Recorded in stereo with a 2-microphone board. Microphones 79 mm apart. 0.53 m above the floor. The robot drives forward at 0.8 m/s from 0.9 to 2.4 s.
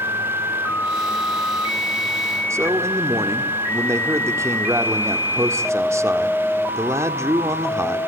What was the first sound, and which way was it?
A man speaking, 35° right (ahead or behind).